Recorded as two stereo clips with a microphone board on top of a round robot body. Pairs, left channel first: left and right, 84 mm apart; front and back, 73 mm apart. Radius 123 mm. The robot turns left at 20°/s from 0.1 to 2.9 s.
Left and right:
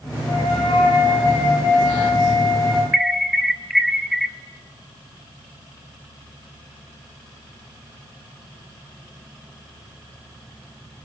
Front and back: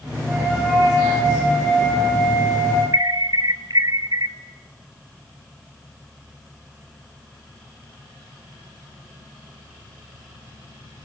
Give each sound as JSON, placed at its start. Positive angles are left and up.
{"t": 0.2, "sound": "a flute", "azimuth_deg": 110, "distance_m": 9.5}
{"t": 2.9, "sound": "an alarm", "azimuth_deg": 180, "distance_m": 1.3}